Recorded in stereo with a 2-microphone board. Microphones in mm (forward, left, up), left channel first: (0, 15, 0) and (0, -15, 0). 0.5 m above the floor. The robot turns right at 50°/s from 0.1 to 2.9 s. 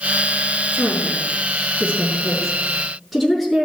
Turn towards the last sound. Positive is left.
turn(degrees=5)  # may be behind; listen again after turning